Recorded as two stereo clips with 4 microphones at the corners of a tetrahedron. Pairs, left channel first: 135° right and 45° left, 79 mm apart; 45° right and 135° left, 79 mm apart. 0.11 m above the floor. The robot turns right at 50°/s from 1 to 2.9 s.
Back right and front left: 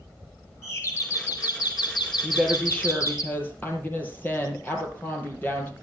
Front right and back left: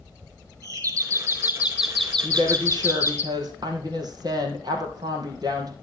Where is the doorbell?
170° left, 3.5 m; by 3.2 s 95° right, 3.5 m.